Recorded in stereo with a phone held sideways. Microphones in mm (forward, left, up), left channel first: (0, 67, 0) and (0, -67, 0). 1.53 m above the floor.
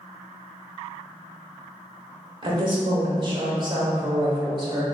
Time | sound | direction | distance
2.4 | a woman speaking | 35° right (ahead or behind) | 0.9 m